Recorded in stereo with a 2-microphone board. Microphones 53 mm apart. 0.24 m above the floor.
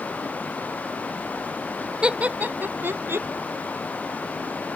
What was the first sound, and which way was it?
Laughter, 20° right (ahead or behind).